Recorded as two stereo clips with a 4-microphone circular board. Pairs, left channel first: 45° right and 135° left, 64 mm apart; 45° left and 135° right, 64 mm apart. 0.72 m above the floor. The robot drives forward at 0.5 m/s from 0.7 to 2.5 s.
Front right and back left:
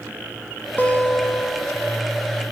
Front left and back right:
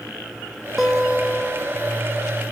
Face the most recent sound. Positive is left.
turn(degrees=-145)